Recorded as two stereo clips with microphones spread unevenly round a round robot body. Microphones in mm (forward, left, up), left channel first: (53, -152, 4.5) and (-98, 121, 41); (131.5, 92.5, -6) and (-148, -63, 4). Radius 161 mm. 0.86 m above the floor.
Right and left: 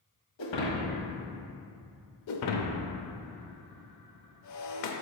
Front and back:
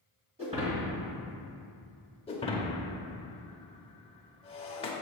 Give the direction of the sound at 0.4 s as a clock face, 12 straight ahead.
3 o'clock.